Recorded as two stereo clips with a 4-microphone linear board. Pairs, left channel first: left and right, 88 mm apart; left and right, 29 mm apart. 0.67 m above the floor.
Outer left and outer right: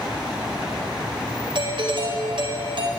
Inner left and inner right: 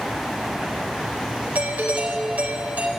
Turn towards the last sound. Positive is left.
turn(degrees=-70)  # may be behind; listen again after turning